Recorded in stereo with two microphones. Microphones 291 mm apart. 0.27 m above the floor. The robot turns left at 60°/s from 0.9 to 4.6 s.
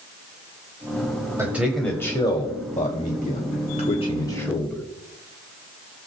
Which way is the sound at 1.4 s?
10° right (ahead or behind).